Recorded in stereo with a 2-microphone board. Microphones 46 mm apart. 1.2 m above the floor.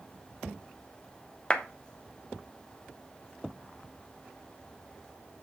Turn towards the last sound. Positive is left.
turn(degrees=25)  # may be behind; listen again after turning